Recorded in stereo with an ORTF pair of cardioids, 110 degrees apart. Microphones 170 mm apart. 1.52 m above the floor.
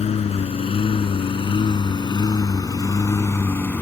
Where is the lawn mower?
40° left; by 3.8 s 10° left.